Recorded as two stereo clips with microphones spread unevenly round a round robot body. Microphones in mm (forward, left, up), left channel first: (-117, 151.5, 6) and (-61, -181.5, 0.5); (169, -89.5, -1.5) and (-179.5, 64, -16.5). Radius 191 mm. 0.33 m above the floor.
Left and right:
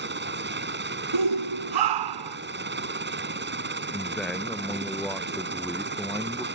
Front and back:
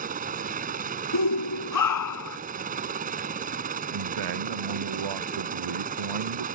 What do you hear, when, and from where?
0.0 s a helicopter: 135° right
1.1 s a shout: 65° right
3.9 s a man speaking: 170° right